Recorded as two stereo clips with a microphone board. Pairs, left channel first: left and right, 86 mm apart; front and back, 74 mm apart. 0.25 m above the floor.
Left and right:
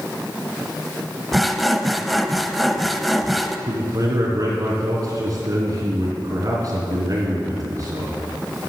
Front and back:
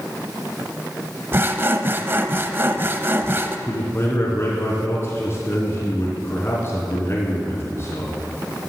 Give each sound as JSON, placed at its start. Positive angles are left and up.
{"t": 1.3, "sound": "sawing", "azimuth_deg": 180, "distance_m": 0.8}
{"t": 3.7, "sound": "a man speaking", "azimuth_deg": -50, "distance_m": 3.0}